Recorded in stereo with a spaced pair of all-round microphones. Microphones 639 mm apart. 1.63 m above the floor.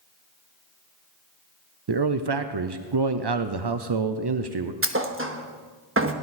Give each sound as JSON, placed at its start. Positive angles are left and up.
{"t": 1.9, "sound": "a man speaking", "side_deg": -40, "distance_m": 0.6}
{"t": 4.8, "sound": "a thud", "side_deg": -20, "distance_m": 0.9}